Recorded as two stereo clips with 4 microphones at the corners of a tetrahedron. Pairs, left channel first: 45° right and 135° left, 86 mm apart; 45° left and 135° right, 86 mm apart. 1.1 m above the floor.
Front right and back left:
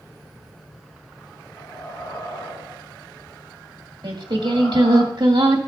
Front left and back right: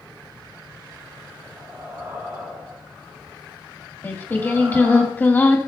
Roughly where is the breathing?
Right.